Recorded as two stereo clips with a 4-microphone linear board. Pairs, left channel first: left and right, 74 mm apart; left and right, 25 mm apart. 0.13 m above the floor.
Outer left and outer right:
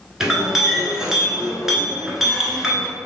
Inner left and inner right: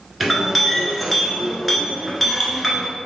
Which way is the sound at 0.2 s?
5° right (ahead or behind).